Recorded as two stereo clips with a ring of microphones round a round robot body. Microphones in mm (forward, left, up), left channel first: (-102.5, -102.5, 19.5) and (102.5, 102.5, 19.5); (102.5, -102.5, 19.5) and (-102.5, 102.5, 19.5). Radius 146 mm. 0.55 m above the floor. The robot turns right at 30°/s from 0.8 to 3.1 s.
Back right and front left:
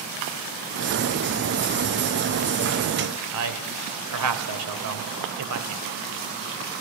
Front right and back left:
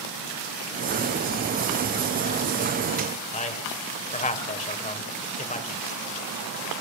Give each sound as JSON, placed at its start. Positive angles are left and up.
{"t": 3.3, "sound": "a man speaking", "azimuth_deg": 20, "distance_m": 3.0}